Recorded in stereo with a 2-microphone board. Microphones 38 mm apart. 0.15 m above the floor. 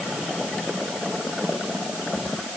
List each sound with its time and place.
Only background noise.